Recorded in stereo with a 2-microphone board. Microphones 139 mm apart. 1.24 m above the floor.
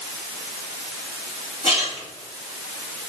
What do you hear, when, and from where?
1.6 s a splash: 50° left (ahead or behind), 3 m